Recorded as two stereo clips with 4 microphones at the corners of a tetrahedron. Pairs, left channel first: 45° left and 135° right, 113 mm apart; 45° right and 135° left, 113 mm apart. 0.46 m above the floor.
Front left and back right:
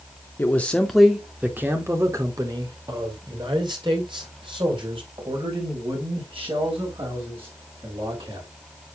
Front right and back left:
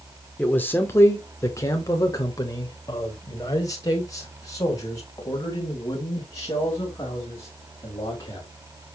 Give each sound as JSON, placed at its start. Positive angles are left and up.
{"t": 0.4, "sound": "a man speaking", "azimuth_deg": 5, "distance_m": 1.0}